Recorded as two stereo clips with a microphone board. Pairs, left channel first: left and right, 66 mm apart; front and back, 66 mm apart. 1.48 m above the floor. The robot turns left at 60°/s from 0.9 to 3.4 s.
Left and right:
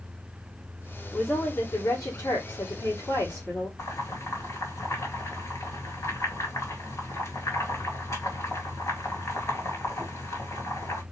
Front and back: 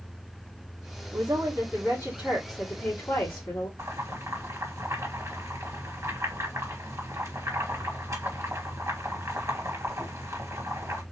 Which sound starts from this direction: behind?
A woman speaking, at 1.1 s.